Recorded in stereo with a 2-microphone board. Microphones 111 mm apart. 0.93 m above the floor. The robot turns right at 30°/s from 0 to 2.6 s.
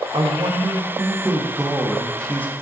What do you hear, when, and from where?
0.1 s a man speaking: 55° right, 1.0 m; by 2.6 s 20° left, 1.0 m